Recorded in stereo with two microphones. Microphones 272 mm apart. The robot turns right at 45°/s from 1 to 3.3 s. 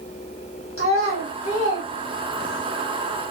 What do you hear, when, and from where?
0.8 s a child speaking: 50° left (ahead or behind), 1.0 m; by 2.7 s 15° left (ahead or behind), 1.0 m